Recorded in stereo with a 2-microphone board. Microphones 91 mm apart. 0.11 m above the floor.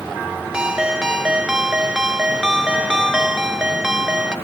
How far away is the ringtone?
About 0.7 m.